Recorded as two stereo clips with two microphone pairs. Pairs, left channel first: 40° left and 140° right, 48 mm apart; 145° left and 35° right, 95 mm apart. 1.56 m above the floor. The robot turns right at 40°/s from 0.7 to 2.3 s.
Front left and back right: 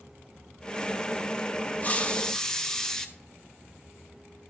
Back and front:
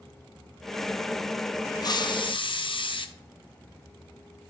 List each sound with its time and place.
1.8 s a hiss: 100° left, 0.6 m; by 3.1 s 115° left, 0.6 m